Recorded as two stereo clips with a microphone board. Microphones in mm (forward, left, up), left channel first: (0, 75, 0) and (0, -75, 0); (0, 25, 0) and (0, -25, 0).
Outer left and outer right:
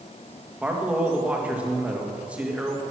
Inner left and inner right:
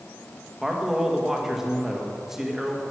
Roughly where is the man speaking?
Centre.